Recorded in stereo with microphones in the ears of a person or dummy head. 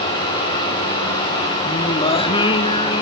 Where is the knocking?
I don't hear knocking.